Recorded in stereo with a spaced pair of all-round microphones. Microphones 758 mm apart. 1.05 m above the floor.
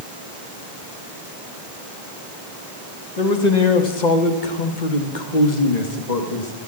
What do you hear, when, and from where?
3.2 s a man speaking: 60° left (ahead or behind), 1.7 m; by 6.5 s 55° left (ahead or behind), 2.0 m